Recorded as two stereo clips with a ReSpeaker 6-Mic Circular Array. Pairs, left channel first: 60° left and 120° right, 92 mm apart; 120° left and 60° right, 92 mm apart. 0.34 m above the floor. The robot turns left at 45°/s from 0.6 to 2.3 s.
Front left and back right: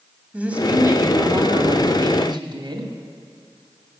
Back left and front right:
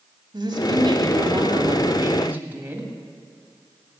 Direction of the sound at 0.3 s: 45° right.